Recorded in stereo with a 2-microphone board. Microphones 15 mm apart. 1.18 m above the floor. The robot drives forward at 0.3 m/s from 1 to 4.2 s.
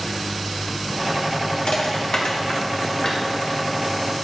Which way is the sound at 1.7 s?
70° left (ahead or behind).